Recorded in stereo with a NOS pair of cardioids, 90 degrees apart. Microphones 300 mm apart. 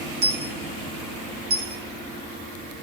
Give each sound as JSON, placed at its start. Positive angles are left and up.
{"t": 0.2, "sound": "a dropped coin", "azimuth_deg": -35, "distance_m": 2.5}